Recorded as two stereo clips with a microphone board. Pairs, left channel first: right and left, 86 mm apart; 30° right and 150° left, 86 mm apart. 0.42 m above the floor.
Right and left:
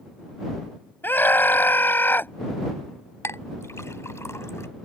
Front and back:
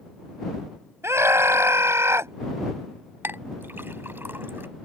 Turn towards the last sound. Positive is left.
turn(degrees=-145)